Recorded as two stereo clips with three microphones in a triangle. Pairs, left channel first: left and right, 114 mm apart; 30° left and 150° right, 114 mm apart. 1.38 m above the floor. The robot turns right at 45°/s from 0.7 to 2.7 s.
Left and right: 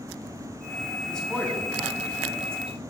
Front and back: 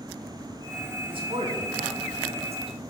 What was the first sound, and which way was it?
A man speaking, 170° left.